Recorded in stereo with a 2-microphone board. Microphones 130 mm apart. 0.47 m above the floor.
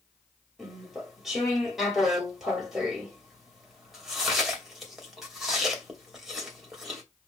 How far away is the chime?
No chime in this recording.